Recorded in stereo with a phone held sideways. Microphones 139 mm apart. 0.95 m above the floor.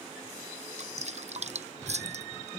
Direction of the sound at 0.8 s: 55° right (ahead or behind).